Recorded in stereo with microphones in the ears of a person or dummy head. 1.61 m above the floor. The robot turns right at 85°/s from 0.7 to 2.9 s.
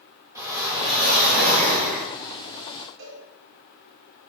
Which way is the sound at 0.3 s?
160° right.